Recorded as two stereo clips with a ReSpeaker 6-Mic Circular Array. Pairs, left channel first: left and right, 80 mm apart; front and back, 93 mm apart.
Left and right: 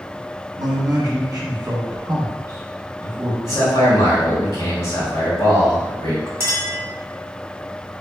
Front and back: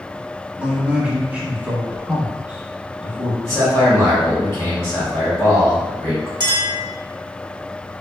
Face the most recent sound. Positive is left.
turn(degrees=-145)